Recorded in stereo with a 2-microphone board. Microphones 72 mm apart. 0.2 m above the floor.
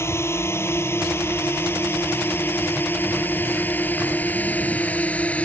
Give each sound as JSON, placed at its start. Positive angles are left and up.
{"t": 0.0, "sound": "a drone", "side_deg": 35}